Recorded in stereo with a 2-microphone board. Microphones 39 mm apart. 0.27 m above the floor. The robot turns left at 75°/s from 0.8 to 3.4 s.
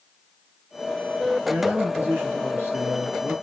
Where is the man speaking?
5° right, 4.5 m; by 3.3 s 145° right, 4.5 m.